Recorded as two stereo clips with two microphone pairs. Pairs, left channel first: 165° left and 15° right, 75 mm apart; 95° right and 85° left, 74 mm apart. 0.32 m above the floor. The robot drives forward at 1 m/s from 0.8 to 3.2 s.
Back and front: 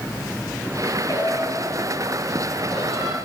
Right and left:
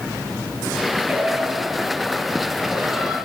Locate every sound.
1.1 s singing: 145° left, 1.8 m; by 3.1 s 165° left, 3.5 m